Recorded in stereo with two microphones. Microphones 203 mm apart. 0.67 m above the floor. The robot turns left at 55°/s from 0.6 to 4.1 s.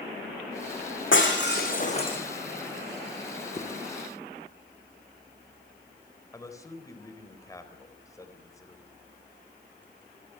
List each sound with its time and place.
1.1 s breaking glass: 80° left, 6 m; by 2.2 s 20° left, 6 m
3.6 s a zipper: 40° left (ahead or behind), 5.5 m; by 3.7 s 35° left (ahead or behind), 5.5 m
6.3 s a man speaking: 15° left (ahead or behind), 4 m